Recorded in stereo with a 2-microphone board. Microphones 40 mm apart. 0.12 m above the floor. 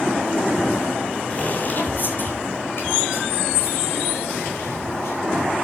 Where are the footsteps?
35° left (ahead or behind), 4 m; by 5.5 s 85° left, 6 m.